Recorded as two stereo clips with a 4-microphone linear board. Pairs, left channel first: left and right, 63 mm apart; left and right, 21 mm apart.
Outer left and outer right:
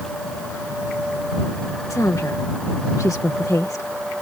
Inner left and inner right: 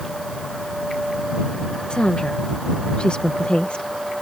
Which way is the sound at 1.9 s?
55° left (ahead or behind).